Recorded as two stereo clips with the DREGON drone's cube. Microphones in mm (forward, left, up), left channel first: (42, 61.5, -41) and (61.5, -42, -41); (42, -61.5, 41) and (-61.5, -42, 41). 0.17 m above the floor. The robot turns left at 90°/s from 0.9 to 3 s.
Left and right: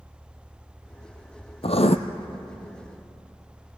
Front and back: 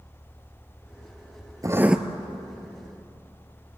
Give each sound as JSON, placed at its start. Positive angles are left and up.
{"t": 1.6, "sound": "writing", "azimuth_deg": 115, "distance_m": 1.1}